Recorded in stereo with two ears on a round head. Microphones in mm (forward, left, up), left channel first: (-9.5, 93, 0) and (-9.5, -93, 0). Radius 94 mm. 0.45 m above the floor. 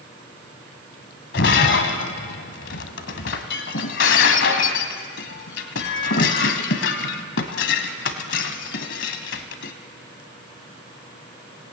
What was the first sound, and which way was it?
Breaking glass, 60° left (ahead or behind).